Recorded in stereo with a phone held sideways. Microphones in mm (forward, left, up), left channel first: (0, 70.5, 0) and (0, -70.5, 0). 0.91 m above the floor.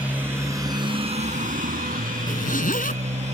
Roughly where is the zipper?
Left.